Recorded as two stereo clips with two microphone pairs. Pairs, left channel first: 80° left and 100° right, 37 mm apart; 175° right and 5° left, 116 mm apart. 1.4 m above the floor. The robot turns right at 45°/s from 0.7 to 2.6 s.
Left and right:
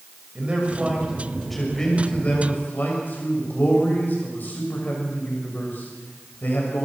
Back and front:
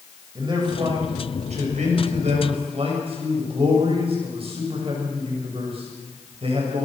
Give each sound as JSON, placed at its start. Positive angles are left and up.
{"t": 0.3, "sound": "a man speaking", "azimuth_deg": -45, "distance_m": 6.5}